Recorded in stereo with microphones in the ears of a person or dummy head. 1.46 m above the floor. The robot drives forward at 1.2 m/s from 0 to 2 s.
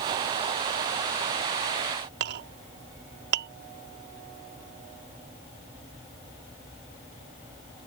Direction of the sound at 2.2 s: 60° right (ahead or behind).